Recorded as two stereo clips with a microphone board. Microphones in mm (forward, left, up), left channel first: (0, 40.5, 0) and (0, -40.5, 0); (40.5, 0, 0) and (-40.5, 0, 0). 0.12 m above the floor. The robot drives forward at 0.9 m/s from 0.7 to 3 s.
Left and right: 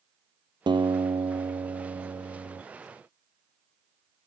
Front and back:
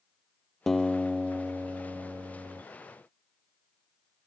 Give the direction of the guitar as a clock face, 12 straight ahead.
3 o'clock.